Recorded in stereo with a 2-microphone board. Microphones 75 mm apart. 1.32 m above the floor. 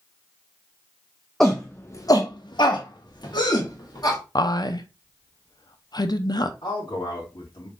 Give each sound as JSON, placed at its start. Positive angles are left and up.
{"t": 1.4, "sound": "a shout", "side_deg": 5, "distance_m": 0.9}
{"t": 4.3, "sound": "a woman speaking", "side_deg": 60, "distance_m": 0.6}
{"t": 6.6, "sound": "a man speaking", "side_deg": 80, "distance_m": 2.5}